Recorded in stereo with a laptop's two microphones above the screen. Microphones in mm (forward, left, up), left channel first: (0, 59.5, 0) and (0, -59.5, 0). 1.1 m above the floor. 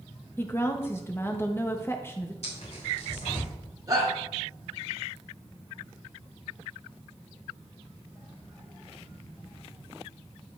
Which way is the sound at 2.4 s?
60° left (ahead or behind).